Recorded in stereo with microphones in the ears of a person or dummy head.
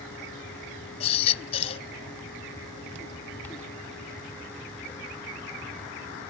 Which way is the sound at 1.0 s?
35° left (ahead or behind).